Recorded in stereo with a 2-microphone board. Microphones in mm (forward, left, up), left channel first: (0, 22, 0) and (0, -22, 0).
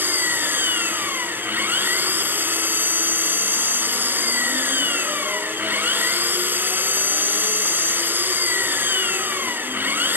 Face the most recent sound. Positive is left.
turn(degrees=-45)  # may be behind; listen again after turning